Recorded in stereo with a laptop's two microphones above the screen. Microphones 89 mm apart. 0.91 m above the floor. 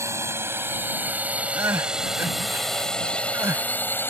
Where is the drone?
35° right (ahead or behind); by 4.1 s 25° left (ahead or behind).